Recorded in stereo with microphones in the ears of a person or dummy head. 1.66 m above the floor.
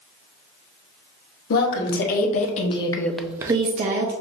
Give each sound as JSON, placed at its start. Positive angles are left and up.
{"t": 1.5, "sound": "a woman speaking", "side_deg": 55, "distance_m": 1.2}